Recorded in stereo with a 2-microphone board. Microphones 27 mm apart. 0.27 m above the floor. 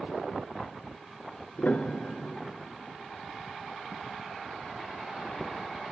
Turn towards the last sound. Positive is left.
turn(degrees=65)  # may be behind; listen again after turning